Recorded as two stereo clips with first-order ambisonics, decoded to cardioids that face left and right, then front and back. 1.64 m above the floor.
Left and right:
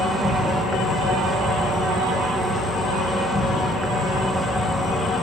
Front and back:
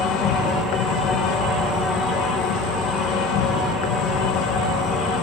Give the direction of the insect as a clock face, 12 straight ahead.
12 o'clock.